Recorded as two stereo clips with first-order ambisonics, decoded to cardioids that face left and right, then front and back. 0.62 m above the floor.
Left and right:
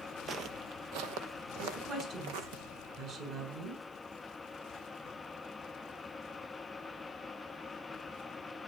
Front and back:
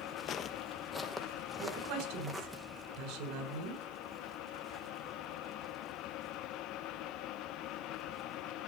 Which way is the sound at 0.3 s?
35° right.